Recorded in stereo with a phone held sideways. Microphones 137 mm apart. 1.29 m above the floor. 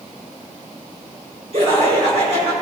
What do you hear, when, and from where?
1.5 s laughter: 50° right (ahead or behind), 5.5 m